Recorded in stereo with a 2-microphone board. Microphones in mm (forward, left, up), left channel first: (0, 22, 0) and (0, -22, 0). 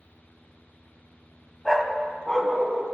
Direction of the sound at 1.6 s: Centre (ahead or behind).